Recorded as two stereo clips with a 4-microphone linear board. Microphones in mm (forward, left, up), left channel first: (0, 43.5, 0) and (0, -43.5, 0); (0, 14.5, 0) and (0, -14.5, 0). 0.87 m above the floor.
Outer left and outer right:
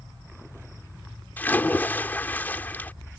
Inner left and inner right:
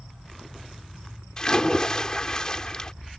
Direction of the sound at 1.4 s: 20° left (ahead or behind).